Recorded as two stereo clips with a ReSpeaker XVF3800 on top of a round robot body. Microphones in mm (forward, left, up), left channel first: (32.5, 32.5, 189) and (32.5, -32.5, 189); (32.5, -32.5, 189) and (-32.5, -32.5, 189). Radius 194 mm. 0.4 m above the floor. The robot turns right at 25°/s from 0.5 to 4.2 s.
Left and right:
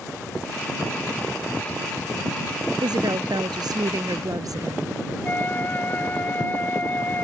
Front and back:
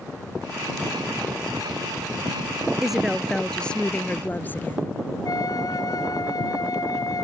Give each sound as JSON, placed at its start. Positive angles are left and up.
{"t": 2.8, "sound": "a woman speaking", "azimuth_deg": -100}
{"t": 5.2, "sound": "a flute", "azimuth_deg": 25}